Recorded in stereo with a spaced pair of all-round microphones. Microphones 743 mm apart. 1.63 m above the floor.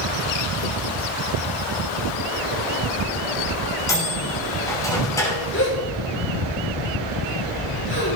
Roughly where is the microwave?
Centre.